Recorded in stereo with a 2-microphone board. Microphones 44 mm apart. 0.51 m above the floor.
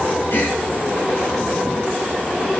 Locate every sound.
0.3 s a gasp: 50° left (ahead or behind), 5.5 m